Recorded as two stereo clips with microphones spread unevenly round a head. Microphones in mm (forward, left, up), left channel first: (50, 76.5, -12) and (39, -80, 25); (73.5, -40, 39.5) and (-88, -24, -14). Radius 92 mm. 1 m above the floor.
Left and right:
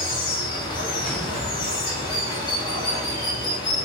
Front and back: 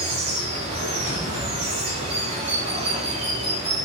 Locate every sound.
0.0 s running water: 135° left, 0.9 m
1.0 s an explosion: 5° right, 0.8 m